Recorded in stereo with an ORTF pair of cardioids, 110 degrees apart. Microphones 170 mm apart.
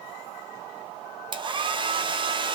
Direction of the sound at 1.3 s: 30° right.